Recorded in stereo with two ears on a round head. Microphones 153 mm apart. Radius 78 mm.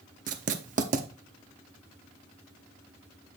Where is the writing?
45° right (ahead or behind), 0.8 m.